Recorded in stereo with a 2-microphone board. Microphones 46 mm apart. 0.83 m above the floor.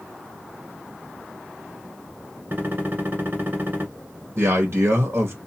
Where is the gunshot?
40° right (ahead or behind), 1.6 m.